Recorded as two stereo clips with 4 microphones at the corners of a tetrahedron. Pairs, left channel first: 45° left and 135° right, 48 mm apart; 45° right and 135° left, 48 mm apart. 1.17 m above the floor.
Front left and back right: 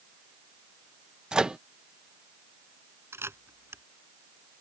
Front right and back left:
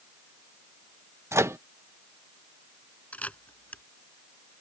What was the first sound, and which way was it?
A microwave, 150° left.